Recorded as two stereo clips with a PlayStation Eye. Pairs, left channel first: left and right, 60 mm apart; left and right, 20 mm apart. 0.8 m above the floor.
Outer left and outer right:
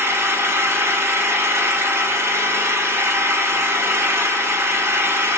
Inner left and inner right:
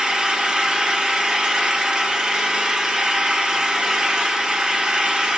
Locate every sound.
0.0 s an engine running: 45° right (ahead or behind), 1.1 m